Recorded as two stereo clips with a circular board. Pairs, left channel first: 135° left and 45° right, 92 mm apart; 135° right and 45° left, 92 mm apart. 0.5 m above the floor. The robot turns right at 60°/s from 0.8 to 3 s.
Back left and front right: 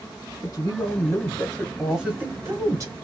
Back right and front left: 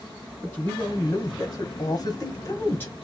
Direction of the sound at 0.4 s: 165° left.